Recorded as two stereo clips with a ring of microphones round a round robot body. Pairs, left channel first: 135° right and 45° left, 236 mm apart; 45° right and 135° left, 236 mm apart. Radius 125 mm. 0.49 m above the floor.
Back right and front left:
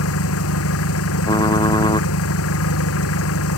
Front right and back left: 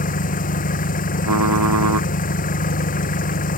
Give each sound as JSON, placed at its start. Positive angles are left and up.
{"t": 0.0, "sound": "an engine running", "azimuth_deg": -105}
{"t": 1.2, "sound": "typing on a keyboard", "azimuth_deg": 150}